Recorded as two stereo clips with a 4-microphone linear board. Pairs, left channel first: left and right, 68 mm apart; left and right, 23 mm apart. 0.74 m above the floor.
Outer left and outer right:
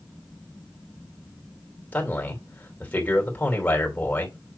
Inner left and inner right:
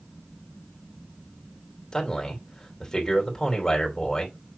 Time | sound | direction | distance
1.9 | a man speaking | 20° left (ahead or behind) | 2.5 m